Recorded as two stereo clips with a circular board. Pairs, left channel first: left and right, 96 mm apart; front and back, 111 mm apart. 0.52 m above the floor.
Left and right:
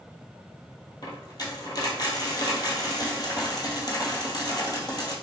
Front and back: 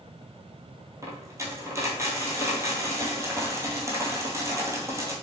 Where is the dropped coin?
120° left, 0.9 m.